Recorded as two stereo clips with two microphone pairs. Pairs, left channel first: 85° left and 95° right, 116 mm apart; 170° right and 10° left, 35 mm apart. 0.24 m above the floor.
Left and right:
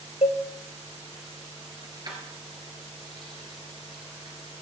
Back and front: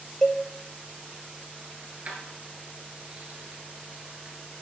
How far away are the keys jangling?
About 2.5 m.